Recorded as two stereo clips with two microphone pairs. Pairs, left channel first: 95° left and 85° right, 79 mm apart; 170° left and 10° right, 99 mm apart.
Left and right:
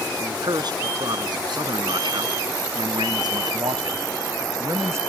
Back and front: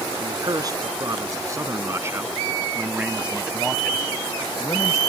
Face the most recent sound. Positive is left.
turn(degrees=-135)